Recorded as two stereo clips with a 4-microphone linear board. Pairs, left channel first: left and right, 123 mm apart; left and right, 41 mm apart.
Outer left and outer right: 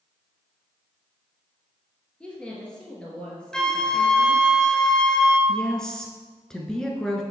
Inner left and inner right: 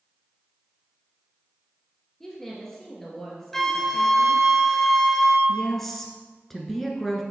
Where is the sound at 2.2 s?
10° left (ahead or behind), 2.5 m.